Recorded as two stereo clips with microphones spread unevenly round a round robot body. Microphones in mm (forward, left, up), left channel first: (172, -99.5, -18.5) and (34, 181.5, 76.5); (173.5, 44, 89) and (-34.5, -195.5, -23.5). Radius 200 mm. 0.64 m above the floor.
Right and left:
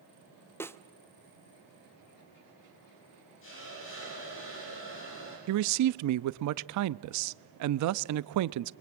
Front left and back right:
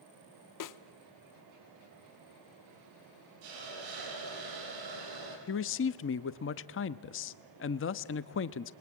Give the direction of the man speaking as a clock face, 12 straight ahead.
8 o'clock.